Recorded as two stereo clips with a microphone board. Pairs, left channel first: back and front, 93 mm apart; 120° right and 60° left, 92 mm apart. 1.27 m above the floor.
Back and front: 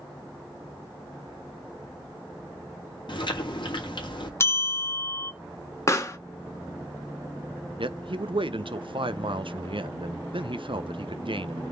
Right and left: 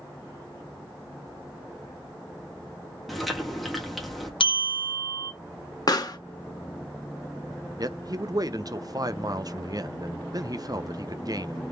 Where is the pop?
135° right, 0.9 m.